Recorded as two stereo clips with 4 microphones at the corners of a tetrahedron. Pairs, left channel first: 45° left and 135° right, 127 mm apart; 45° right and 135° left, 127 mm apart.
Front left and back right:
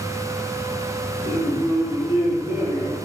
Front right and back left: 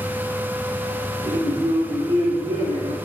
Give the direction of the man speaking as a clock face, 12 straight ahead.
6 o'clock.